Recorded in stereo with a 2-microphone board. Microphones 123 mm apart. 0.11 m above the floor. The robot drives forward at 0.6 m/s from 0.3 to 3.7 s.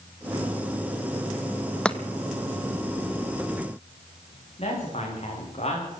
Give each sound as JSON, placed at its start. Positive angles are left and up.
{"t": 1.9, "sound": "chopping", "side_deg": 10, "distance_m": 0.9}
{"t": 4.6, "sound": "a man speaking", "side_deg": 50, "distance_m": 9.5}